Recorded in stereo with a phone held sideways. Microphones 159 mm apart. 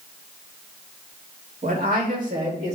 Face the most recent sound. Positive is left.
turn(degrees=-45)  # may be behind; listen again after turning